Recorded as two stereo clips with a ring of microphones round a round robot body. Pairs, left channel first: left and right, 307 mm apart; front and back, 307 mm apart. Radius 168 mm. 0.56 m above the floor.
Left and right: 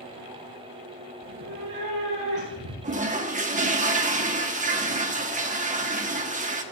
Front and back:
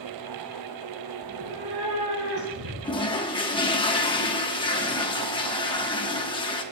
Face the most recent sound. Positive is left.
turn(degrees=-55)